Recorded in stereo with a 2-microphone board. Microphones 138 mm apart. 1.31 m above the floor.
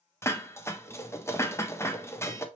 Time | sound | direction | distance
0.2 | dishes clattering | 20° left (ahead or behind) | 0.5 m